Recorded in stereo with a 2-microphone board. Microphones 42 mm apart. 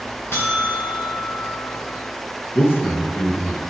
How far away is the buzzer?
About 3.5 m.